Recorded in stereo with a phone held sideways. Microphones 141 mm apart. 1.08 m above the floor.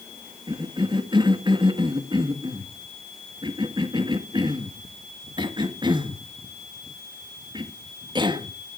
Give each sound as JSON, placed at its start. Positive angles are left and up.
{"t": 0.5, "sound": "a cough", "side_deg": -30, "distance_m": 1.7}